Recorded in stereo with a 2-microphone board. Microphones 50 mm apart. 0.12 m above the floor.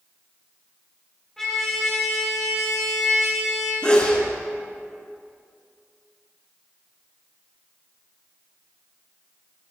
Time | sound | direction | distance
1.4 | a trumpet | 5° left (ahead or behind) | 2.5 m
3.8 | a sneeze | 20° left (ahead or behind) | 1.6 m